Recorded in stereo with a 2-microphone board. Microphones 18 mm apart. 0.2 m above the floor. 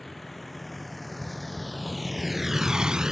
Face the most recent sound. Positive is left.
turn(degrees=-30)  # may be behind; listen again after turning